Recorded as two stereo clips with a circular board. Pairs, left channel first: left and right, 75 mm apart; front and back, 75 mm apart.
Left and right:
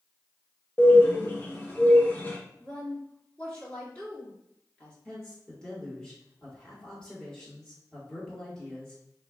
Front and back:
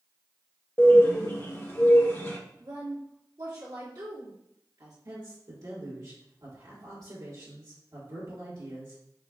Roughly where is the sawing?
No sawing in this recording.